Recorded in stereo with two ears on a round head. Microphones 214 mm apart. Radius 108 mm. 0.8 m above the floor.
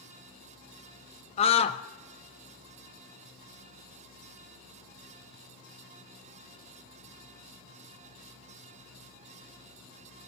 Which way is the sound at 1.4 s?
25° left (ahead or behind).